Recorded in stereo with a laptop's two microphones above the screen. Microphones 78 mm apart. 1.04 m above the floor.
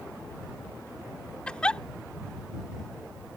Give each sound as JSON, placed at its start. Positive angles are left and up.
{"t": 1.5, "sound": "a giggle", "side_deg": 10}